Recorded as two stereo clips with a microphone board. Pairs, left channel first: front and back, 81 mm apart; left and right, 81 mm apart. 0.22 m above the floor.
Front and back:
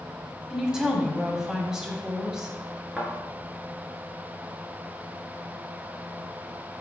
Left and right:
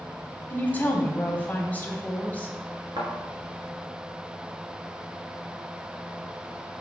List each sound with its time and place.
0.5 s a woman speaking: 110° left, 1.3 m
3.0 s a thud: 100° right, 1.7 m